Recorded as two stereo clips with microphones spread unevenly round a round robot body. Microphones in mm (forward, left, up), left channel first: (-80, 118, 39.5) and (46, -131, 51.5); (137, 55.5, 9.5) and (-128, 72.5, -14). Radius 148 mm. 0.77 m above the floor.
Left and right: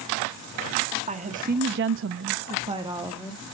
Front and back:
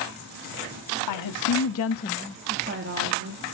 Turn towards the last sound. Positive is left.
turn(degrees=-145)